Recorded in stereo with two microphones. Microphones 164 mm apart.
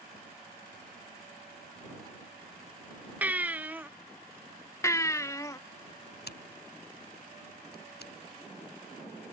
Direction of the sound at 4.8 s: 20° left (ahead or behind).